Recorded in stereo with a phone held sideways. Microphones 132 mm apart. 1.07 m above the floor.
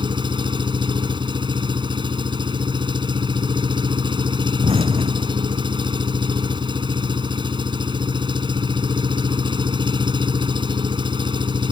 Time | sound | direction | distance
0.0 | an engine running | 35° right (ahead or behind) | ?
4.6 | an explosion | 50° right (ahead or behind) | ?